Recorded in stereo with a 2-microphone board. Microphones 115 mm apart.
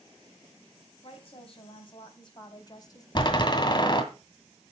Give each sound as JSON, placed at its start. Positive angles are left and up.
{"t": 1.0, "sound": "a woman speaking", "side_deg": 55, "distance_m": 3.0}
{"t": 3.1, "sound": "a door slam", "side_deg": 40, "distance_m": 1.9}